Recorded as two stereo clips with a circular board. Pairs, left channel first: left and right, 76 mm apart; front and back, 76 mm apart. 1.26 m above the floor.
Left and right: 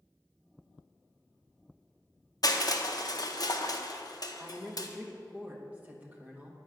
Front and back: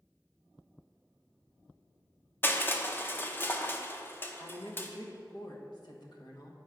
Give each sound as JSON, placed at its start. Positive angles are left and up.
{"t": 2.4, "sound": "crushing", "azimuth_deg": 60, "distance_m": 0.6}
{"t": 4.4, "sound": "a woman speaking", "azimuth_deg": -20, "distance_m": 1.3}